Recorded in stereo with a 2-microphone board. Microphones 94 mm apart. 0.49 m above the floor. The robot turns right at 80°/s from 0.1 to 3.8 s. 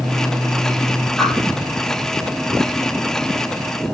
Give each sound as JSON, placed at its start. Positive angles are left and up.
{"t": 1.2, "sound": "a whoosh", "side_deg": 0, "distance_m": 4.0}